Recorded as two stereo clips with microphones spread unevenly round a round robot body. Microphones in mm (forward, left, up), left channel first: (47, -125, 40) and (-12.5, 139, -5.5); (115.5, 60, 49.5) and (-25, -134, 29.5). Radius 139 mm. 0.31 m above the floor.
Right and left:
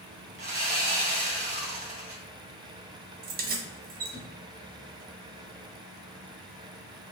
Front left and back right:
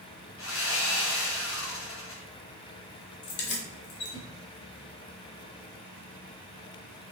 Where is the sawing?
55° left, 1.9 m.